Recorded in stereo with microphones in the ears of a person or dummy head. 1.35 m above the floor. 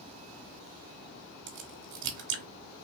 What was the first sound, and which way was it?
A crack, 70° right (ahead or behind).